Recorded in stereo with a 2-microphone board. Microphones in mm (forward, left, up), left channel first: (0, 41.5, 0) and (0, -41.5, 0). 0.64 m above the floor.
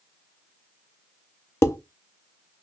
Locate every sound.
1.6 s dishes clattering: 35° left (ahead or behind), 0.6 m